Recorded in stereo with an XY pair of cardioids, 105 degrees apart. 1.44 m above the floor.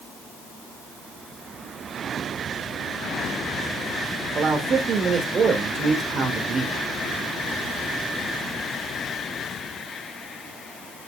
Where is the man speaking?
50° right, 2.5 m.